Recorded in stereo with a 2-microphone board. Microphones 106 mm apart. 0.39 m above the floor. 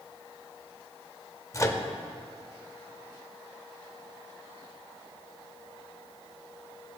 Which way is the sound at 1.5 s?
30° left (ahead or behind).